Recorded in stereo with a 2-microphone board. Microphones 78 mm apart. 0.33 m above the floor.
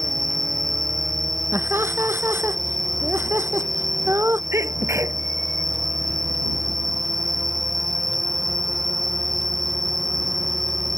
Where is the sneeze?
35° right (ahead or behind).